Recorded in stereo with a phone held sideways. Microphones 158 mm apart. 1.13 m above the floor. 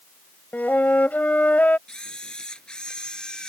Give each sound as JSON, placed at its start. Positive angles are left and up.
{"t": 0.5, "sound": "a flute", "side_deg": 10}
{"t": 1.9, "sound": "a camera shutter", "side_deg": 5}